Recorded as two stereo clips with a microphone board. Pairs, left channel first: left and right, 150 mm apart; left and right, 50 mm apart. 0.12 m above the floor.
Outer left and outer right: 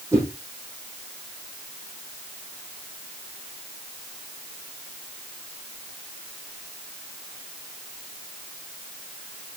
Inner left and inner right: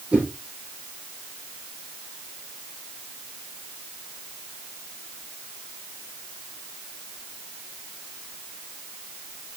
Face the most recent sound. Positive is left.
turn(degrees=-20)  # may be behind; listen again after turning